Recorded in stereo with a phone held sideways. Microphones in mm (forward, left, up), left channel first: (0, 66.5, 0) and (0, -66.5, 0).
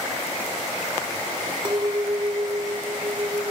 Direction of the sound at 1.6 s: 35° right (ahead or behind).